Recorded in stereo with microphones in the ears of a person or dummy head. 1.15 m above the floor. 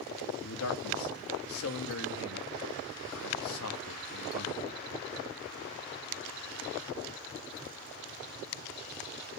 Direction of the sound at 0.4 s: 80° left.